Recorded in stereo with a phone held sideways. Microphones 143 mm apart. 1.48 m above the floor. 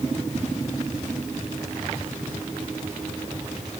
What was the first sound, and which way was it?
Only background noise.